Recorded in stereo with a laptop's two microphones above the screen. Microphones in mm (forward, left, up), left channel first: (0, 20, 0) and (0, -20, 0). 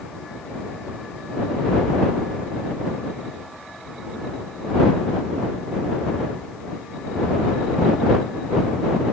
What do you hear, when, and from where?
Only background noise.